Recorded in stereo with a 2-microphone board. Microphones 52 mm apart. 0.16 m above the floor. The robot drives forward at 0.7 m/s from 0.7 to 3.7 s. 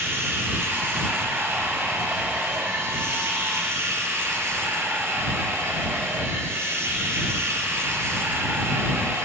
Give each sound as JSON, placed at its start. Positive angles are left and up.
{"t": 0.0, "sound": "running water", "side_deg": -50, "distance_m": 4.5}